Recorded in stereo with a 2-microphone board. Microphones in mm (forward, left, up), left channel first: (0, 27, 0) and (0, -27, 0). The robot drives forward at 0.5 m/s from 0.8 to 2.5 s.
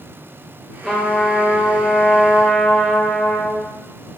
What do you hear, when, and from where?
0.8 s a trumpet: 15° left (ahead or behind), 2 m; by 3.7 s 10° left (ahead or behind), 3 m